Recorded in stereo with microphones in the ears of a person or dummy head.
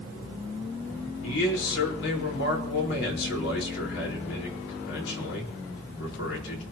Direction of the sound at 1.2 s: 75° left (ahead or behind).